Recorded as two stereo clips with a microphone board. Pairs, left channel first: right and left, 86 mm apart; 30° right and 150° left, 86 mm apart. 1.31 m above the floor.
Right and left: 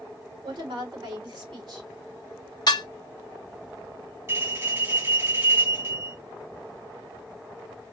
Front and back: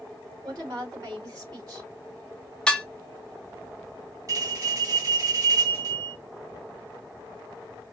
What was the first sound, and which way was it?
A woman speaking, 105° left.